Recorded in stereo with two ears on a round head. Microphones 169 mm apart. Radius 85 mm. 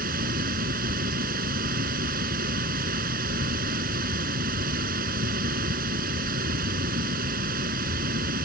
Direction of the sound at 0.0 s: 50° right (ahead or behind).